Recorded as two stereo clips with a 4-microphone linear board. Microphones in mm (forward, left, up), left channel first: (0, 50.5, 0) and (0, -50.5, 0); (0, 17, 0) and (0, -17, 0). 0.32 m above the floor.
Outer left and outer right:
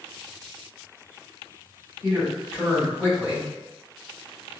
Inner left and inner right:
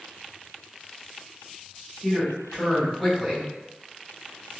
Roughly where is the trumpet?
I don't hear a trumpet.